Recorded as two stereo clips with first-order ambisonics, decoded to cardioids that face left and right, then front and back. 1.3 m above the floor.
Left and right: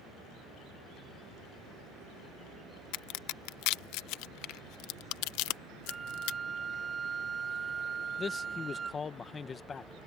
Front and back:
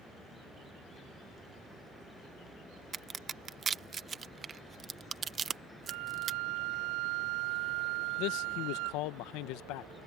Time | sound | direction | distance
2.9 | a crack | 115° left | ?
5.9 | a flute | 160° right | ?
8.2 | a man speaking | 20° left | ?